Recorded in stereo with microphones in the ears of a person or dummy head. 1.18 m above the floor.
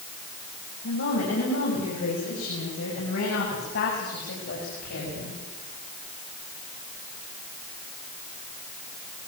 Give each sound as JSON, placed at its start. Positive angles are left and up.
{"t": 0.8, "sound": "a woman speaking", "side_deg": 75, "distance_m": 7.0}